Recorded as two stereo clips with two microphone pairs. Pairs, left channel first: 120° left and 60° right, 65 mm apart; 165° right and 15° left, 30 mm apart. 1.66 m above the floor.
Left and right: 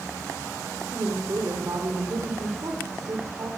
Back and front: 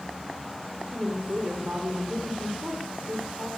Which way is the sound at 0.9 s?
25° right.